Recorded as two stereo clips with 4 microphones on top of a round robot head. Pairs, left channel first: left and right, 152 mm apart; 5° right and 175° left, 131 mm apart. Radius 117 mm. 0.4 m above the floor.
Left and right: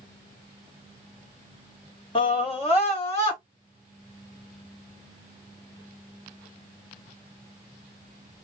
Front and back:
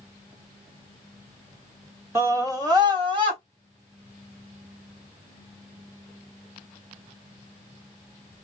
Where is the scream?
115° left, 1.6 m; by 3.4 s 130° left, 2.5 m.